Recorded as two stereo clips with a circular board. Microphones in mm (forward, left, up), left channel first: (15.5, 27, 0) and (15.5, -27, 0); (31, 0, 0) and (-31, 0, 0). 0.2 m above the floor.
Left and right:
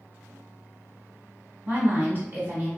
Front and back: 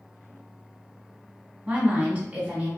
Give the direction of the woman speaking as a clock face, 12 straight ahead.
4 o'clock.